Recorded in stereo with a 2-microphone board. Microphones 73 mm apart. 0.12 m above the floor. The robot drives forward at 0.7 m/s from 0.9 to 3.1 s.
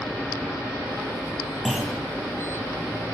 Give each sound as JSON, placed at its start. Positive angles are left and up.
{"t": 1.6, "sound": "a clunk", "side_deg": 5, "distance_m": 1.4}